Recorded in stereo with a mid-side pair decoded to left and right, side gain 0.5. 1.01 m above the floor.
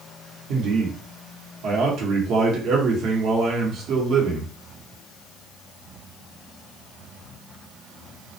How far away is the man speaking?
About 1.0 m.